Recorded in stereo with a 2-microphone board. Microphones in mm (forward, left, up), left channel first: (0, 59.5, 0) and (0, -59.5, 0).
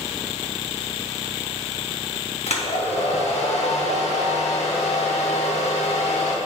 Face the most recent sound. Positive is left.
turn(degrees=65)  # may be behind; listen again after turning